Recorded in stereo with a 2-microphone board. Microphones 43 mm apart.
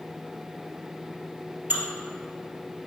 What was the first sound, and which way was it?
Dishes clattering, 40° right (ahead or behind).